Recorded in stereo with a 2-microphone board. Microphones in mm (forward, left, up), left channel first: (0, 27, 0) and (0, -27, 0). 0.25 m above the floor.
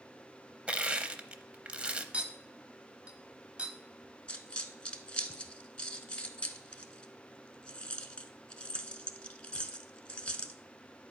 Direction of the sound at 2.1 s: 25° right (ahead or behind).